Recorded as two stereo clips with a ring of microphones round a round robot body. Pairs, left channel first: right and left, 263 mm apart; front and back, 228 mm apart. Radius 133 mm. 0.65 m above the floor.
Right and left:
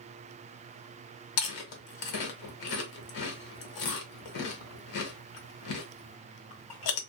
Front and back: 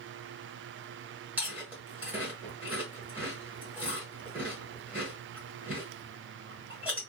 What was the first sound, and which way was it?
Chewing, 95° right.